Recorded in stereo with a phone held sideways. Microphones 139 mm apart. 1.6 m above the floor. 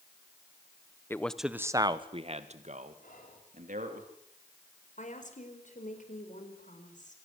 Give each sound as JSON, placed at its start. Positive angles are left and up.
{"t": 1.1, "sound": "a man speaking", "side_deg": 20, "distance_m": 1.3}
{"t": 3.0, "sound": "whispering", "side_deg": 85, "distance_m": 5.0}
{"t": 5.0, "sound": "a woman speaking", "side_deg": 65, "distance_m": 5.0}